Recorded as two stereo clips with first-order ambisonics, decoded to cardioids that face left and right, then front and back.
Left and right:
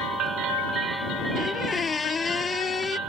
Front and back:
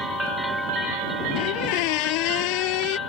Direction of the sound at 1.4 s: 15° left.